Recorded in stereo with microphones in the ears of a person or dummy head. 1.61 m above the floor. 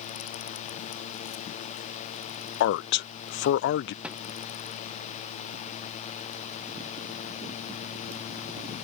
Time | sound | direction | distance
2.6 | a man speaking | 55° left (ahead or behind) | ?
4.0 | a thud | 5° right (ahead or behind) | ?